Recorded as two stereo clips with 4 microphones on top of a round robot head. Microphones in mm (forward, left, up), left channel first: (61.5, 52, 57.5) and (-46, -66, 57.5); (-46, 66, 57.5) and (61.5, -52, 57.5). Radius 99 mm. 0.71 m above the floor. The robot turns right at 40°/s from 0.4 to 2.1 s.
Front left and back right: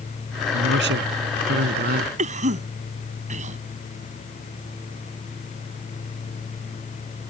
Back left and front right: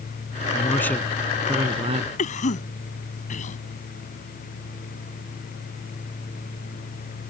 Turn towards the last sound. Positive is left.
turn(degrees=180)